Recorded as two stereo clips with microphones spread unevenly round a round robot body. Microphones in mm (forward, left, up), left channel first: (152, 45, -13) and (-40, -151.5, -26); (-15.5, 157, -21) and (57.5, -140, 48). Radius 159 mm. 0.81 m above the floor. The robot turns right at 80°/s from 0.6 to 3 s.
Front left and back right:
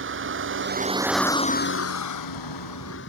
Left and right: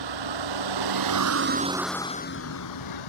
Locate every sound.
0.0 s a vehicle: 90° right; by 3.1 s 105° left